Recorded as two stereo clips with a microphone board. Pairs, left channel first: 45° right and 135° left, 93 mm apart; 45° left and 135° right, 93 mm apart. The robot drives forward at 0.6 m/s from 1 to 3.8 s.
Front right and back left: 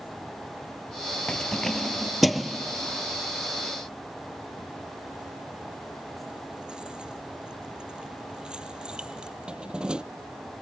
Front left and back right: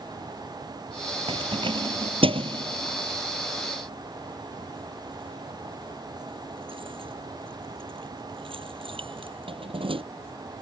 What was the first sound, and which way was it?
Keys jangling, 125° right.